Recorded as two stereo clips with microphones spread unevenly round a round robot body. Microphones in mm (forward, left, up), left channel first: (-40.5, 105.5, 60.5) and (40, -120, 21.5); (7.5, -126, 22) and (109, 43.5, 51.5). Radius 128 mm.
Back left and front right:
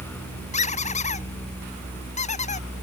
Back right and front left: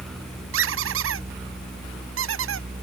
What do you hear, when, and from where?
0.5 s a squeak: 45° left